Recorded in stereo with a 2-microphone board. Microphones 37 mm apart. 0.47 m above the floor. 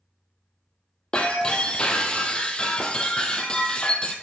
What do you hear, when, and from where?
1.1 s breaking glass: 25° left (ahead or behind), 1.3 m